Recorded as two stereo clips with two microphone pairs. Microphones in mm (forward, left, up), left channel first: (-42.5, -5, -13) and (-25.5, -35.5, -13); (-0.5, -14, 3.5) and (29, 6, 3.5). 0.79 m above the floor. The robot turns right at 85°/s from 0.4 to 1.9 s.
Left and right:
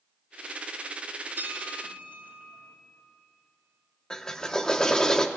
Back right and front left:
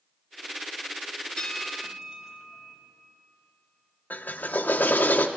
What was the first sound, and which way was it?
A bell, 85° right.